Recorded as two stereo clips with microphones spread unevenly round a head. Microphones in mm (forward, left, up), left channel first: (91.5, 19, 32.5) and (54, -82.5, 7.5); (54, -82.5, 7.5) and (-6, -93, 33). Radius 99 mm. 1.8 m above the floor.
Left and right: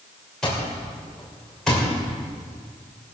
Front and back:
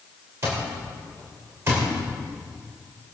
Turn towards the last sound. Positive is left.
turn(degrees=150)